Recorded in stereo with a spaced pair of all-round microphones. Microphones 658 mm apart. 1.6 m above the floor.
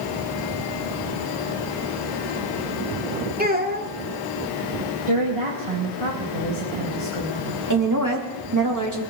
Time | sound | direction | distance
3.4 | a child speaking | 15° right (ahead or behind) | 2.5 m
5.1 | a woman speaking | 50° right (ahead or behind) | 2.5 m
7.7 | a woman speaking | 25° right (ahead or behind) | 3 m